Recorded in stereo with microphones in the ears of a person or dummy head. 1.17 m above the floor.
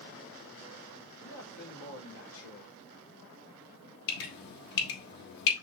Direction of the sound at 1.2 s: 85° left.